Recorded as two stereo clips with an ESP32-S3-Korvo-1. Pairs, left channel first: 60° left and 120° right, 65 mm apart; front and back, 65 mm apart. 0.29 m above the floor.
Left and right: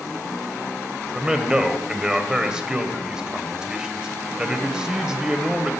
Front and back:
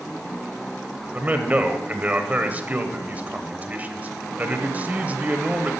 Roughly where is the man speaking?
Behind.